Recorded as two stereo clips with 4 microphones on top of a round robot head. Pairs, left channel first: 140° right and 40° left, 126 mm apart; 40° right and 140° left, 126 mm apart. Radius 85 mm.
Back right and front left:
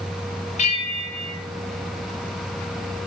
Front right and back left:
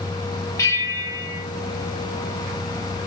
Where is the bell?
105° right, 1.6 m.